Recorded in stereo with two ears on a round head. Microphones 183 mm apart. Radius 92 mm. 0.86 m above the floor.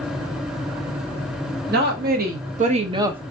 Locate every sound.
1.7 s a woman speaking: 55° right (ahead or behind), 1.4 m; by 3.2 s 5° right (ahead or behind), 0.5 m